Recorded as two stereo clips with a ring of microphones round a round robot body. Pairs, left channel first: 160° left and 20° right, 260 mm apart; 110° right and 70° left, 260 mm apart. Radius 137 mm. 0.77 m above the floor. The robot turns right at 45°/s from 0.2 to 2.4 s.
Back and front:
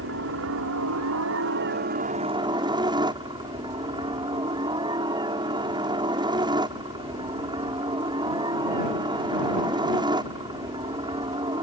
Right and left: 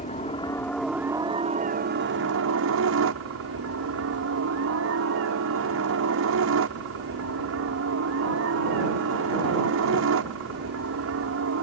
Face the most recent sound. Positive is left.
turn(degrees=45)